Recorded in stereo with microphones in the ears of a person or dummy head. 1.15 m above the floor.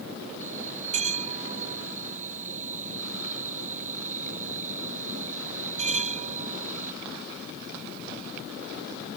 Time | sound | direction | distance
0.4 | a bell | 30° right (ahead or behind) | ?